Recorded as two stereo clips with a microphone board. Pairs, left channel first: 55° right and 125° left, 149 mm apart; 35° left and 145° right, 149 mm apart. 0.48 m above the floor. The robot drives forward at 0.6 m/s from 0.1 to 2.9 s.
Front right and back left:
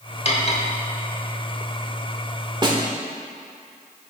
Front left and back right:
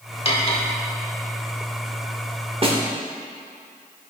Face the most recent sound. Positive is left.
turn(degrees=175)